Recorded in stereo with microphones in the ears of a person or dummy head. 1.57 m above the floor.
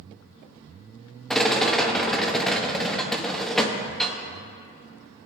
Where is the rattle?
5° left (ahead or behind), 0.8 m.